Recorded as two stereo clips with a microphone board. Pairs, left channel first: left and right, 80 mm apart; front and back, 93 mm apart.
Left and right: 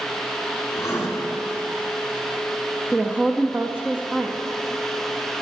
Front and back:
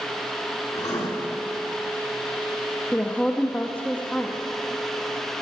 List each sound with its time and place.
0.8 s writing: 40° left, 1.6 m
2.9 s a woman speaking: 50° right, 0.6 m